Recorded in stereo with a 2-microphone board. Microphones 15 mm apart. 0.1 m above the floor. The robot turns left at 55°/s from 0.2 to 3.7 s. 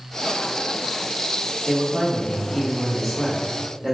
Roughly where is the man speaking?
Behind left.